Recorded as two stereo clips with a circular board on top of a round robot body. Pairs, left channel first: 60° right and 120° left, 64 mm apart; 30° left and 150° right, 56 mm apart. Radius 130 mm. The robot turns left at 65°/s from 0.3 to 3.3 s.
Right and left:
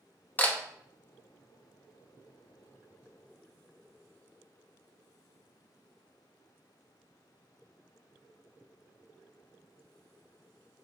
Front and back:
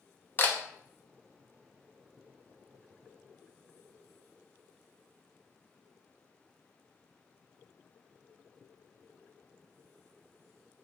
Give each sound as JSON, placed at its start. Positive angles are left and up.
{"t": 0.4, "sound": "a camera shutter", "azimuth_deg": -10, "distance_m": 0.7}